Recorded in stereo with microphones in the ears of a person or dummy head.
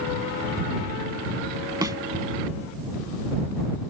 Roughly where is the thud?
Centre.